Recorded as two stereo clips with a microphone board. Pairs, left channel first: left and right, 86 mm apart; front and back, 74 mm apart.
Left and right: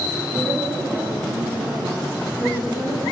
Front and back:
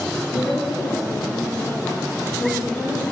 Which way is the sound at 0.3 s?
30° right.